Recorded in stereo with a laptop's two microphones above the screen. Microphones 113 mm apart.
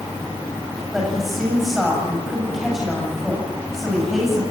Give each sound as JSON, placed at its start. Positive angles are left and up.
{"t": 0.9, "sound": "a woman speaking", "side_deg": 0, "distance_m": 7.5}